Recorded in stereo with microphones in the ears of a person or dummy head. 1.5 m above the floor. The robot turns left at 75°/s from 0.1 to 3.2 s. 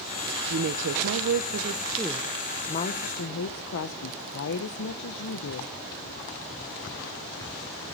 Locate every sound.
0.5 s a woman speaking: 50° right, 0.8 m; by 5.7 s 110° left, 0.8 m